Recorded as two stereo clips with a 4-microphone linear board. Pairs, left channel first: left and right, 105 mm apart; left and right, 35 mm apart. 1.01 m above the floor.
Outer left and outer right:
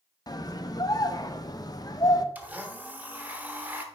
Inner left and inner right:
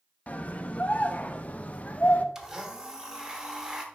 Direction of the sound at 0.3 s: 35° left (ahead or behind).